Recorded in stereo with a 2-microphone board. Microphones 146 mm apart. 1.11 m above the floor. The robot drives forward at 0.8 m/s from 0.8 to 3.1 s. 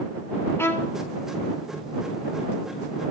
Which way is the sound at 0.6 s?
15° left (ahead or behind).